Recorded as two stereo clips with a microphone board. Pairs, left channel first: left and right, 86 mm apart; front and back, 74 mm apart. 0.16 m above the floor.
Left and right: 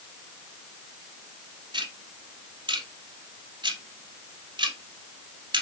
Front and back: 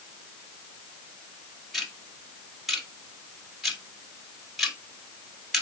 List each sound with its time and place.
1.7 s ticking: 90° right, 1.6 m